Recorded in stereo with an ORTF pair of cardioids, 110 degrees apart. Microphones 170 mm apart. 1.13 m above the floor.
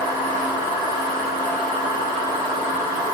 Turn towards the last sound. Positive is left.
turn(degrees=60)